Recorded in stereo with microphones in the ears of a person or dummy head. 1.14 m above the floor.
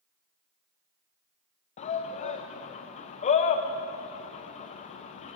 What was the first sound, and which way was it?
A shout, 35° left (ahead or behind).